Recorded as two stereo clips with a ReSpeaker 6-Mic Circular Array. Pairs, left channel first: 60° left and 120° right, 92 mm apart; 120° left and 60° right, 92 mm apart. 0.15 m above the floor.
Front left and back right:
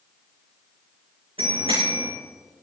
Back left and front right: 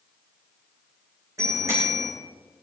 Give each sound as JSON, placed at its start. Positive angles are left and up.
{"t": 1.4, "sound": "a bicycle bell", "azimuth_deg": -115, "distance_m": 8.0}